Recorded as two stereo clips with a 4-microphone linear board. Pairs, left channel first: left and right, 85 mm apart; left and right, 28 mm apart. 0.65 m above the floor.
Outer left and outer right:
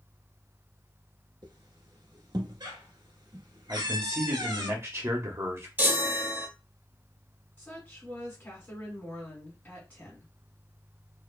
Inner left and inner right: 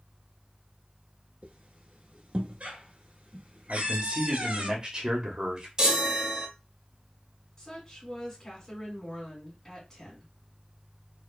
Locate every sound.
1.4 s a squeak: 60° right (ahead or behind), 1.0 m
3.7 s a man speaking: 35° right (ahead or behind), 1.0 m
5.8 s a chime: 20° right (ahead or behind), 0.8 m
7.6 s a woman speaking: 25° left (ahead or behind), 1.7 m